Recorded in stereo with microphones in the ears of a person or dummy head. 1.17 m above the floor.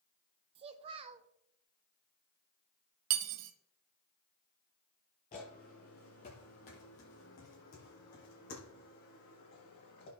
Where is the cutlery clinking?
70° right (ahead or behind), 0.7 m.